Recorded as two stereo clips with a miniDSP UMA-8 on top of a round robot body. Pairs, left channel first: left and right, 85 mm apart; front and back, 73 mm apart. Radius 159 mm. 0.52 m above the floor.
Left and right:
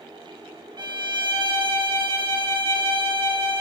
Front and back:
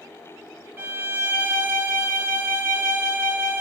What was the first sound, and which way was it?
A violin, 115° right.